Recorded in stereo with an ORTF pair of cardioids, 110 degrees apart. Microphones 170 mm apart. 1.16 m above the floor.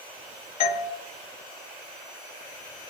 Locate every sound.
0.6 s a doorbell: 65° left, 1.2 m